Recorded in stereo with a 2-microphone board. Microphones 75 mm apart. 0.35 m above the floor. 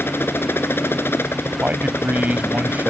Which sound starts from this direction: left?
A helicopter, at 0.0 s.